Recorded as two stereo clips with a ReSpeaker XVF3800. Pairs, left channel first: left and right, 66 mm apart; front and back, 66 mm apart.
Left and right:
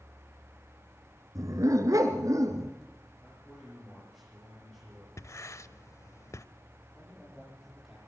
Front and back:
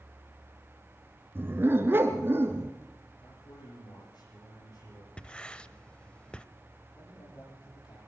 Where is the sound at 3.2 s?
10° left, 10 m.